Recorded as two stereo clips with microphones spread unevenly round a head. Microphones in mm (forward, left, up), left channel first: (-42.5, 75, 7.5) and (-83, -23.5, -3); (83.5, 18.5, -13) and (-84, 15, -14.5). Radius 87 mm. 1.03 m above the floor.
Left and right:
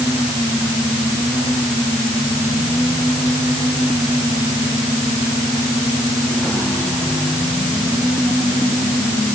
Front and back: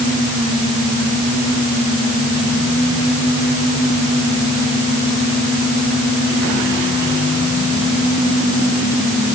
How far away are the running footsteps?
No running footsteps in this recording.